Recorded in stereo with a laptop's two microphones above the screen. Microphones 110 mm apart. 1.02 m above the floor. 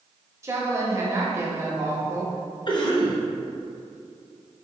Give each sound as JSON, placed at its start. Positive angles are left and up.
{"t": 0.4, "sound": "a woman speaking", "side_deg": -25, "distance_m": 0.7}
{"t": 2.7, "sound": "a cough", "side_deg": 40, "distance_m": 0.6}